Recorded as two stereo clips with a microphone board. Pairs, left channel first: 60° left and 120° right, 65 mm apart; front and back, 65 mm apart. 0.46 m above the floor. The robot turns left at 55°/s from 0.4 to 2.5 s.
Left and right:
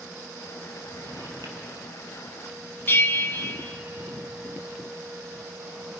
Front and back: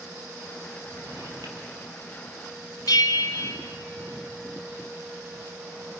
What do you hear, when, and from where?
0.9 s a drawer: 125° right, 4.5 m; by 3.9 s 145° left, 4.5 m
2.9 s a bell: 5° left, 1.4 m